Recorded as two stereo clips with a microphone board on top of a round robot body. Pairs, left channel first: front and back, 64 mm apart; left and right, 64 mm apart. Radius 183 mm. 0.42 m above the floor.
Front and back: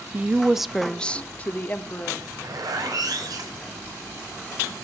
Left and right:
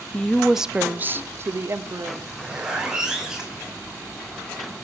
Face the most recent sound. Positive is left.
turn(degrees=-170)